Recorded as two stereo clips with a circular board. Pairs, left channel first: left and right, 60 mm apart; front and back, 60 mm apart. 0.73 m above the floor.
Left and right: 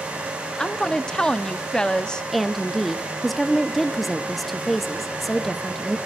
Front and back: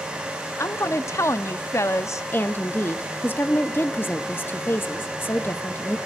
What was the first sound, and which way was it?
A woman speaking, 15° left.